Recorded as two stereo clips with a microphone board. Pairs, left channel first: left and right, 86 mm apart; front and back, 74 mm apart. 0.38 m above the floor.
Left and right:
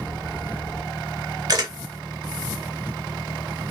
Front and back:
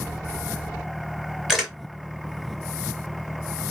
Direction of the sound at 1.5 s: 100° right.